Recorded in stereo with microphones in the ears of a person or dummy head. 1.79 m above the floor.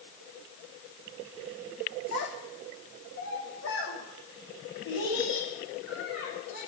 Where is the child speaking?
60° left (ahead or behind), 1.5 m; by 6.6 s 80° left, 5.5 m.